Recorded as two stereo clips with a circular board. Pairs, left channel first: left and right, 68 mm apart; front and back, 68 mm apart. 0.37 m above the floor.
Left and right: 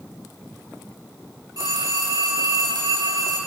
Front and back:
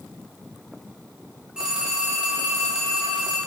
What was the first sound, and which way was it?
A phone ringing, 100° right.